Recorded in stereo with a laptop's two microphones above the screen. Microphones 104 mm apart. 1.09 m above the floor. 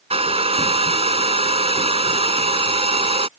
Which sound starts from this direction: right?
A hair dryer, at 0.1 s.